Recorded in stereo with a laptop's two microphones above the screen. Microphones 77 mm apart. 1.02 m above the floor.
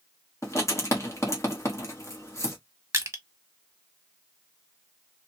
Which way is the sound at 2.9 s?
40° right (ahead or behind).